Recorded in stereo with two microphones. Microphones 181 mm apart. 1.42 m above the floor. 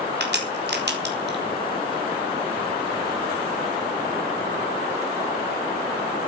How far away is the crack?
About 4.5 m.